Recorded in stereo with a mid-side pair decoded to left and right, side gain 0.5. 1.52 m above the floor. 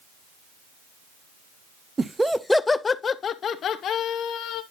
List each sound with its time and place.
2.0 s laughter: 25° right, 0.5 m; by 4.6 s 70° left, 1.5 m